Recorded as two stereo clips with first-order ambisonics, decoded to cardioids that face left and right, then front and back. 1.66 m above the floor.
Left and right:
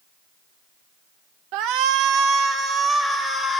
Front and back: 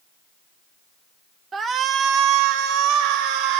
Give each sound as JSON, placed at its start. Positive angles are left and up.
{"t": 1.5, "sound": "a shout", "azimuth_deg": -110, "distance_m": 0.8}